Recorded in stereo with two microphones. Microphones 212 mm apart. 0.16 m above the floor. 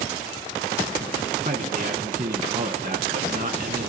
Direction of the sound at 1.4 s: 40° right (ahead or behind).